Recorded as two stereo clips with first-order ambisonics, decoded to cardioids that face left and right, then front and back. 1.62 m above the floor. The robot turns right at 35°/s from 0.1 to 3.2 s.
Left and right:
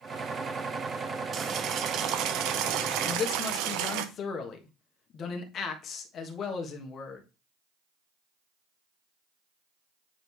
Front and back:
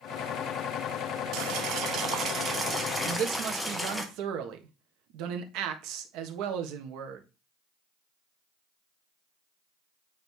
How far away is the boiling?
About 0.9 m.